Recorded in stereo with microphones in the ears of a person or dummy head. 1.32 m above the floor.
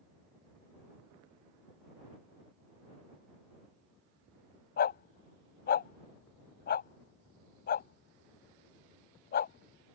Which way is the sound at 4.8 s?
55° left (ahead or behind).